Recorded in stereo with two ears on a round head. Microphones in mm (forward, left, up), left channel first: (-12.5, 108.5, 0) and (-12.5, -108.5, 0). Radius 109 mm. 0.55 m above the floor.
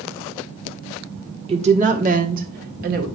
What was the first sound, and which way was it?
A woman speaking, 25° right (ahead or behind).